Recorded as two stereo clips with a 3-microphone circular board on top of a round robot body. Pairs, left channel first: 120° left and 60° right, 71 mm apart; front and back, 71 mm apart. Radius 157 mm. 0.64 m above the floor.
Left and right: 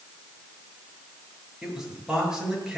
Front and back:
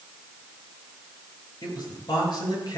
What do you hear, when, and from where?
1.6 s a man speaking: 20° left, 8 m